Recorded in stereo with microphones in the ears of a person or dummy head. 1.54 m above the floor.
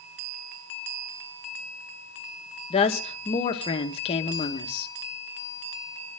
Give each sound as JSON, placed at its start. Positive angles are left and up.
{"t": 2.7, "sound": "a woman speaking", "side_deg": 35, "distance_m": 1.7}